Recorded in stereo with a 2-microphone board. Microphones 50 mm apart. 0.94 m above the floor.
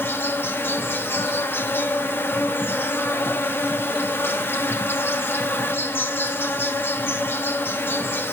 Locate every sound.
0.0 s an insect: 50° left (ahead or behind), 0.7 m